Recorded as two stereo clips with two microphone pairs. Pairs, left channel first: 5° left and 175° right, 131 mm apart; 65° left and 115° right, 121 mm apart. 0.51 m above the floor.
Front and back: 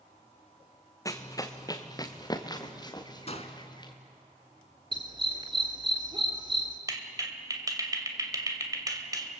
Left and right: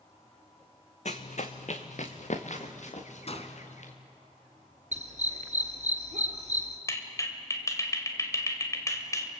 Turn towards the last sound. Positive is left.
turn(degrees=125)